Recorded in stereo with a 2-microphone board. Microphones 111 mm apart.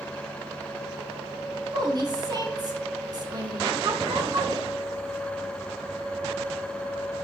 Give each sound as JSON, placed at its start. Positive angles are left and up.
{"t": 1.7, "sound": "a woman speaking", "side_deg": -35, "distance_m": 1.6}